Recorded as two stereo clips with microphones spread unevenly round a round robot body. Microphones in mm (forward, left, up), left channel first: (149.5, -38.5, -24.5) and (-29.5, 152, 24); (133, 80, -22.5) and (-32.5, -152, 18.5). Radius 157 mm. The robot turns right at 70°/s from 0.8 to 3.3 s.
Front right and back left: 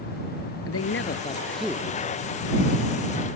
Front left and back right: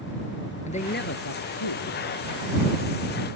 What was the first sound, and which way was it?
A man speaking, 10° right.